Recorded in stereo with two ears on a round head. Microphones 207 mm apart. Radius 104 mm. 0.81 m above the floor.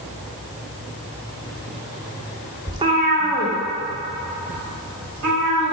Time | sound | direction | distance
2.7 | a cat meowing | 15° right (ahead or behind) | 0.6 m